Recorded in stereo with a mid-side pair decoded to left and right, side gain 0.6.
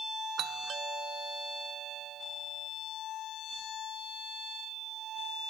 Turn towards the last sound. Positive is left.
turn(degrees=-50)